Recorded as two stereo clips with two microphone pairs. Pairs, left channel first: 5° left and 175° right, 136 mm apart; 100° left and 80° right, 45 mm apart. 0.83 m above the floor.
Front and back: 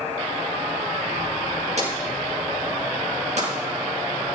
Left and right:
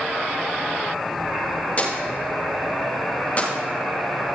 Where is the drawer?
150° left, 6.5 m.